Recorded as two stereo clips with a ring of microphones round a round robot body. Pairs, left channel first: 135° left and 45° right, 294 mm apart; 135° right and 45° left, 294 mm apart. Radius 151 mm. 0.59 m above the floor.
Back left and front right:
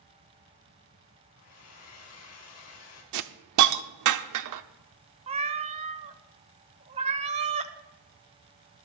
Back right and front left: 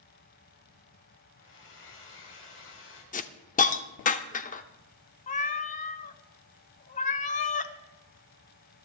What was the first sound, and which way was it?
A hair dryer, 175° left.